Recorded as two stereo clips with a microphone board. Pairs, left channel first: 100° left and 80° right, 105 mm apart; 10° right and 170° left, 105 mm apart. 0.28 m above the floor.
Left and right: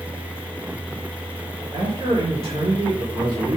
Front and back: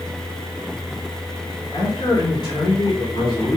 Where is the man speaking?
55° right, 4 m.